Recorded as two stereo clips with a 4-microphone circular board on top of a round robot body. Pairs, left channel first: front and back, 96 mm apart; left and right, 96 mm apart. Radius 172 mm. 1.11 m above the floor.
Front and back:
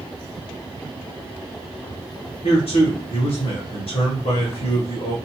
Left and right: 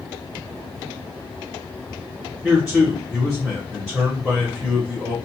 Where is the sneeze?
No sneeze in this recording.